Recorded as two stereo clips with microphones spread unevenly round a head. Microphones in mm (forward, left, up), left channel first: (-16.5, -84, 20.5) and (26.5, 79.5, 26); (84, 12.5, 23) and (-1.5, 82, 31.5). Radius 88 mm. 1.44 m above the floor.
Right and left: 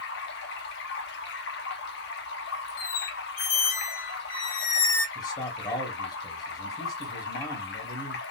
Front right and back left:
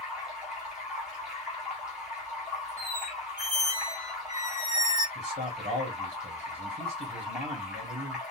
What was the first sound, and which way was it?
Running water, 135° right.